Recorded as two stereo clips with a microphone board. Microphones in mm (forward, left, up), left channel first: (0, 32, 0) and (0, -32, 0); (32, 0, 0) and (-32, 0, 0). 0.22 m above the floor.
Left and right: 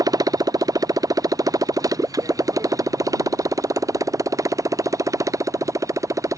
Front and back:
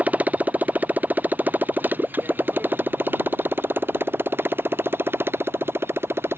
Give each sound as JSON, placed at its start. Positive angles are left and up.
{"t": 0.0, "sound": "a motorcycle", "azimuth_deg": -115}